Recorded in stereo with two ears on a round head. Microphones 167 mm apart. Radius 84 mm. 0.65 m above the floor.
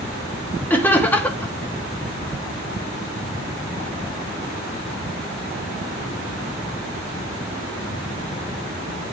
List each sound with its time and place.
0.7 s laughter: 10° left (ahead or behind), 1.0 m